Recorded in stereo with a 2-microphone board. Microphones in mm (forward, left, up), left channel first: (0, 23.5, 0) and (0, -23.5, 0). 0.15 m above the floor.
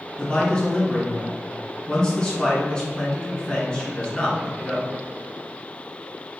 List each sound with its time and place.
0.2 s a man speaking: 15° left (ahead or behind), 1.6 m